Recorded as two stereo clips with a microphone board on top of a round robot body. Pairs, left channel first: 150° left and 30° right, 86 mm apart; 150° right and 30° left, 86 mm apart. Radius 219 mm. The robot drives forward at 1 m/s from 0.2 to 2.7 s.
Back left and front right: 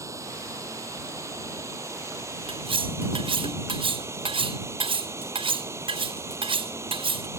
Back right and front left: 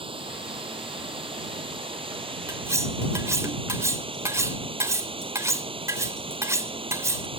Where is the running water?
25° left; by 7.4 s 30° left.